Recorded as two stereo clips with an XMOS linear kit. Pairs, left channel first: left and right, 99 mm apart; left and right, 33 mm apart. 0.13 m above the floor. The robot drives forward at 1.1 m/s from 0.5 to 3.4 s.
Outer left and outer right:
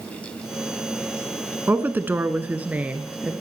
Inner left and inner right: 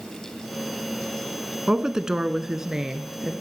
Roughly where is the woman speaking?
Centre.